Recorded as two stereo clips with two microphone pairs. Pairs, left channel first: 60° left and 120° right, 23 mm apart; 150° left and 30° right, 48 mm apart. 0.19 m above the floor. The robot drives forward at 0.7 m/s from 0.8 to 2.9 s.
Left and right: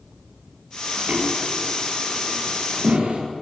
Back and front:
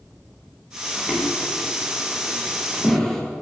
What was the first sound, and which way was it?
Footsteps, 120° right.